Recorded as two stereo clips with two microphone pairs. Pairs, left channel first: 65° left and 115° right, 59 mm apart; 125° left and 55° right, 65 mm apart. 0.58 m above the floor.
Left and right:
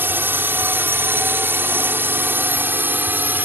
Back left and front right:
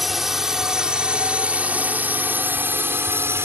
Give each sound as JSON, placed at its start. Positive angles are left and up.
{"t": 0.0, "sound": "a drone", "azimuth_deg": -140}